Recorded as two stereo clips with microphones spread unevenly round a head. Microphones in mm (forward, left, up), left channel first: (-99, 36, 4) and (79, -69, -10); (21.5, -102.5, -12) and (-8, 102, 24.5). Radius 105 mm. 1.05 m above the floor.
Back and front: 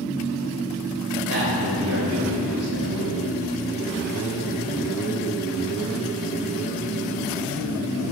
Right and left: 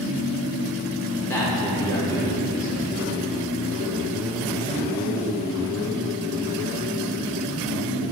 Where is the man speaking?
Straight ahead, 3.5 m.